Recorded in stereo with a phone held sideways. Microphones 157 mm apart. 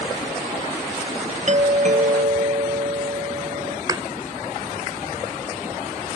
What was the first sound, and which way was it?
A doorbell, 50° right (ahead or behind).